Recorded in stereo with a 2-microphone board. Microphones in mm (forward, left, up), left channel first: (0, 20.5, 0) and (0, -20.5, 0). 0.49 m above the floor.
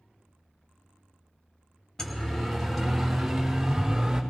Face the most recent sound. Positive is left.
turn(degrees=-10)  # may be behind; listen again after turning